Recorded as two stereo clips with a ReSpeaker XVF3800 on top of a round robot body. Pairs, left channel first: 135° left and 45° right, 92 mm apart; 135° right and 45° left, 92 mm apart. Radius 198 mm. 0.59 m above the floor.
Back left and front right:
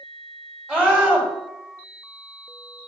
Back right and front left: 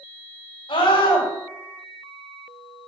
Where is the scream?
120° right, 6 m.